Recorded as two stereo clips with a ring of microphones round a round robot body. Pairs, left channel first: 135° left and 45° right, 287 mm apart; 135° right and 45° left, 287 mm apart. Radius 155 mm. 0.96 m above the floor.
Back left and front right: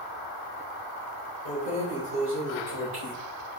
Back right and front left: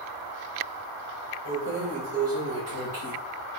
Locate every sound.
1.4 s keys jangling: 10° left, 3 m; by 3.1 s straight ahead, 3.5 m